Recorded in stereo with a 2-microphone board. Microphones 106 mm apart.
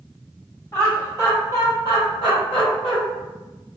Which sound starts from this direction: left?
Laughter, at 0.7 s.